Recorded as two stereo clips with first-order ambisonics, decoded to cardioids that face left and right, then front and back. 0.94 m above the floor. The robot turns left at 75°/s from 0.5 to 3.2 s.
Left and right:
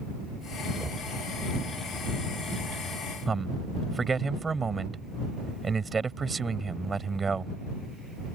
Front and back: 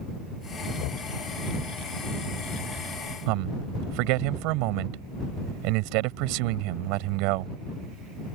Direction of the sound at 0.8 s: Straight ahead.